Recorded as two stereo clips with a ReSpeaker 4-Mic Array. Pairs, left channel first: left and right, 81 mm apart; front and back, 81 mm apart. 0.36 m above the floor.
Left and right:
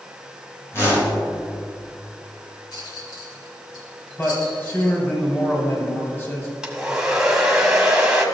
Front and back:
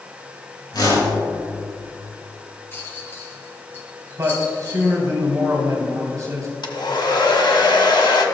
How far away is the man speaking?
About 2 m.